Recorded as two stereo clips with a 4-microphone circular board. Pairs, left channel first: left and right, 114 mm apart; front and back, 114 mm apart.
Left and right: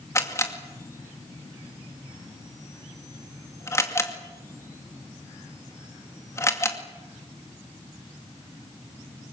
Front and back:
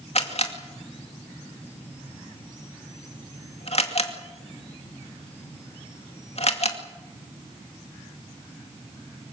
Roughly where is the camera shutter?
Ahead left.